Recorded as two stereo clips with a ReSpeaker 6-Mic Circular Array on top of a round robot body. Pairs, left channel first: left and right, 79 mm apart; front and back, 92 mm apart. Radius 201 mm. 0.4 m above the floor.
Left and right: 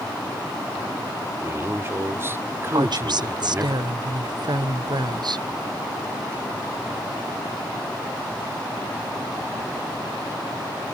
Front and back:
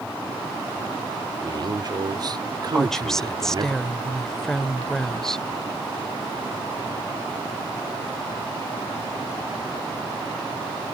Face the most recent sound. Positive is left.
turn(degrees=-85)